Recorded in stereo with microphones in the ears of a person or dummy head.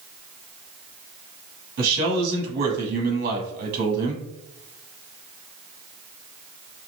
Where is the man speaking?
50° right (ahead or behind), 1.5 m.